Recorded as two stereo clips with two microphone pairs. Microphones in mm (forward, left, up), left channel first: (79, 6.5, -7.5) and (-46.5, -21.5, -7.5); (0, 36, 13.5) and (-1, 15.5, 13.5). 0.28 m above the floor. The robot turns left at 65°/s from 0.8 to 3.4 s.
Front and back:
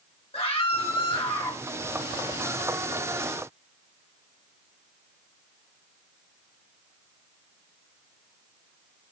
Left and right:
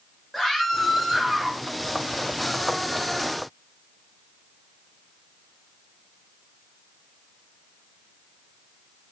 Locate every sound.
0.3 s a scream: 10° left, 2 m; by 1.6 s 45° right, 2 m